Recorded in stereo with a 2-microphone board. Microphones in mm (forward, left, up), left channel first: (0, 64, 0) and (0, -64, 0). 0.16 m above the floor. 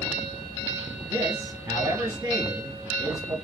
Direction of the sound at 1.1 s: 25° right (ahead or behind).